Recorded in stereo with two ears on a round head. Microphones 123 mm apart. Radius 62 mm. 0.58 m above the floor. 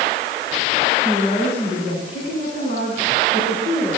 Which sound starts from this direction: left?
A woman speaking, at 1.1 s.